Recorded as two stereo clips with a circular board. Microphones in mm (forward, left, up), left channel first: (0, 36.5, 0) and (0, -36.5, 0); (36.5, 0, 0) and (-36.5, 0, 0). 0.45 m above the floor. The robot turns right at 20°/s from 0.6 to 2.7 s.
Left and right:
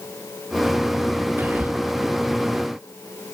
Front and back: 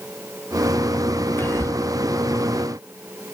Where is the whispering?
45° right, 1.1 m; by 1.8 s 35° right, 1.1 m.